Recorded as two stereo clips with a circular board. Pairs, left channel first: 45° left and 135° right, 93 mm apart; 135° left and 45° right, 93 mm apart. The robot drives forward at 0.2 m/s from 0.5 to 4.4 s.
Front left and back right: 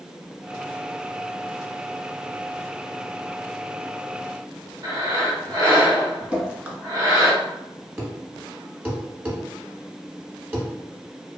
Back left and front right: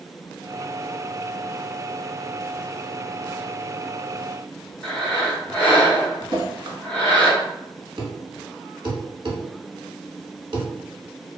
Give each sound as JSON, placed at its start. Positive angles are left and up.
{"t": 4.8, "sound": "breathing", "azimuth_deg": -155, "distance_m": 1.0}
{"t": 6.3, "sound": "dripping", "azimuth_deg": -70, "distance_m": 0.9}
{"t": 8.0, "sound": "a thud", "azimuth_deg": -70, "distance_m": 0.8}